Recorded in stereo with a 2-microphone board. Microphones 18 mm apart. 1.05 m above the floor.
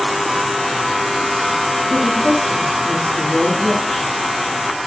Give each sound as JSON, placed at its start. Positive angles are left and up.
{"t": 1.9, "sound": "a woman speaking", "side_deg": 85, "distance_m": 6.5}